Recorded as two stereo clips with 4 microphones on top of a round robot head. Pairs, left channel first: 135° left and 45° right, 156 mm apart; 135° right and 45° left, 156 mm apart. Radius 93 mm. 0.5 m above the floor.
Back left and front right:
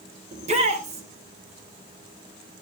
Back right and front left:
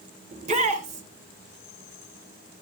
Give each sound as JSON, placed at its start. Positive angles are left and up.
{"t": 0.3, "sound": "a shout", "azimuth_deg": 0, "distance_m": 2.5}